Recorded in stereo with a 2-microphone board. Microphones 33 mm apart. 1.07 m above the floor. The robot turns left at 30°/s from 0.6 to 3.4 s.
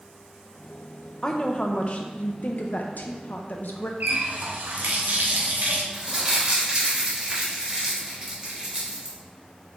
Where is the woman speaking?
155° left, 0.5 m; by 3.9 s 85° left, 0.5 m.